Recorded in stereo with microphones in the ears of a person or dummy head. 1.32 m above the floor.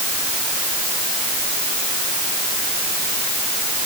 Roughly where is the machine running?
I don't hear a machine running.